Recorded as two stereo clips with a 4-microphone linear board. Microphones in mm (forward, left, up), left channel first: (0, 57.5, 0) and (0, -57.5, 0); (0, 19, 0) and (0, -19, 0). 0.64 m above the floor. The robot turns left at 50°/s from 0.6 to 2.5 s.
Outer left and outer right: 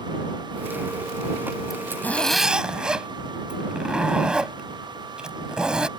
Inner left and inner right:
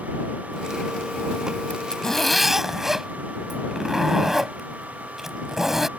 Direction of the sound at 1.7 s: 35° left.